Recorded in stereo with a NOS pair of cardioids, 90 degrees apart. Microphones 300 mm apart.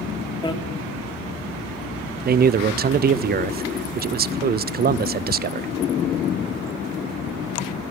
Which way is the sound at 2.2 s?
35° right.